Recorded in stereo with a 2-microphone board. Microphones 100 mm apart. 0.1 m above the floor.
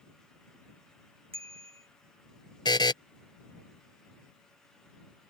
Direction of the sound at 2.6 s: 50° left (ahead or behind).